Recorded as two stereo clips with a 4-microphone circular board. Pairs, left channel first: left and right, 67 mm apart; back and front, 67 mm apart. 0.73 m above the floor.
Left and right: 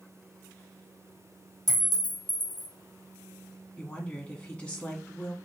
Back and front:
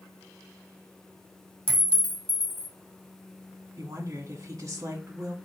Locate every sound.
1.7 s a clink: 110° right, 1.3 m
3.8 s a woman speaking: 25° left, 1.4 m